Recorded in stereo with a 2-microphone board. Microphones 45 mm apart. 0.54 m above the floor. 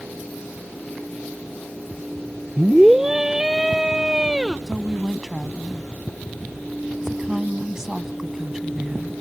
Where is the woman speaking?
10° right (ahead or behind).